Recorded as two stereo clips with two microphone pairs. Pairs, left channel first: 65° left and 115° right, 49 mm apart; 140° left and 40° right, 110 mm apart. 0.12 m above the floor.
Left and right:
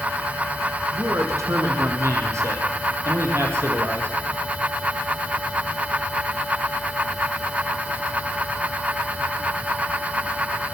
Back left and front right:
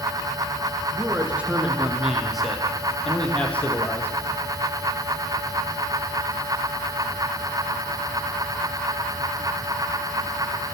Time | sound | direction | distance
0.9 | a man speaking | 115° right | 5 m